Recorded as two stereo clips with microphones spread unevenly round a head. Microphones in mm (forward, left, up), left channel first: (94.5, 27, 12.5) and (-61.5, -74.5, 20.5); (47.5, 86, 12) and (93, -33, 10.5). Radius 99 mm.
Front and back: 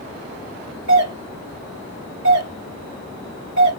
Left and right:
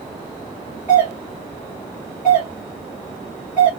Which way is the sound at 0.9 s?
140° right.